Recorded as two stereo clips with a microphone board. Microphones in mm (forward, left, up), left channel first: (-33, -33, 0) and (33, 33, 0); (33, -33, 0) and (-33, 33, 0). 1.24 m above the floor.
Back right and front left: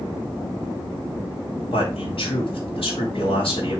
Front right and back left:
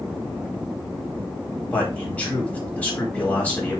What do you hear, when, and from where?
1.7 s a man speaking: 120° right, 4.5 m